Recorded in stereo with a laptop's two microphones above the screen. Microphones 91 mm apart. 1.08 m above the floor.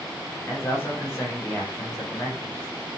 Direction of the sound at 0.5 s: 30° left (ahead or behind).